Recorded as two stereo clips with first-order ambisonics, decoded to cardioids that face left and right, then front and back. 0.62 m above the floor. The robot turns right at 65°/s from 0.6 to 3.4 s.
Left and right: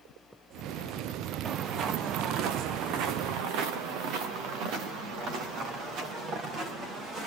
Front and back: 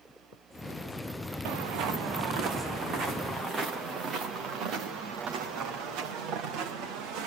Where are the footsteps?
170° right, 2.5 m; by 7.3 s 145° right, 6.5 m.